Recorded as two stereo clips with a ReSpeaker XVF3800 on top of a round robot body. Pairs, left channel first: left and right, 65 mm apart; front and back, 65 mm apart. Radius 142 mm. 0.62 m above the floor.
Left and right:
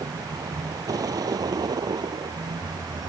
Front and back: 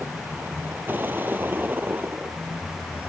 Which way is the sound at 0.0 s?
120° right.